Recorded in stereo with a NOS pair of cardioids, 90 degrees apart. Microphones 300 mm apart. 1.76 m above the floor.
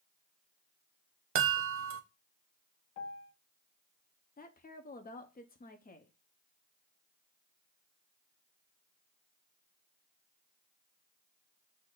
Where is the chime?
50° right, 0.8 m.